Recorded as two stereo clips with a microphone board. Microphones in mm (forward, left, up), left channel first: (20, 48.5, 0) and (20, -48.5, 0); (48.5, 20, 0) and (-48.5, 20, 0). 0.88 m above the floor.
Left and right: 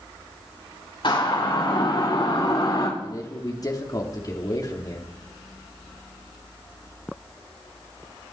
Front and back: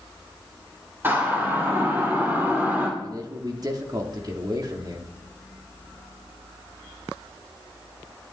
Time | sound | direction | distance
1.0 | a siren | 115° left | 5 m
3.0 | a man speaking | 135° left | 2.5 m